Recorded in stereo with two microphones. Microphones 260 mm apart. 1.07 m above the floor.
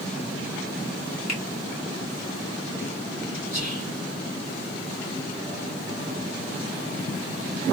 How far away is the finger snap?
About 1.5 m.